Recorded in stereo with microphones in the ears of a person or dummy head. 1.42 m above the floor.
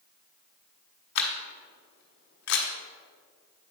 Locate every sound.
1.1 s a camera shutter: 75° left (ahead or behind), 1.3 m